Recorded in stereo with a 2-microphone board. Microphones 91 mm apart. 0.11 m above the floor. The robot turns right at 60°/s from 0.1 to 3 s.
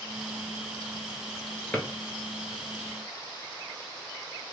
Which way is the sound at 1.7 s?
15° left (ahead or behind).